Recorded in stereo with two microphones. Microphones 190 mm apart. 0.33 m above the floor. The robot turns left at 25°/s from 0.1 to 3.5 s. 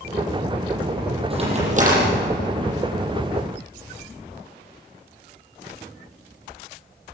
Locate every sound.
1.3 s a crack: 30° right (ahead or behind), 8.5 m; by 2.1 s 50° right (ahead or behind), 8.5 m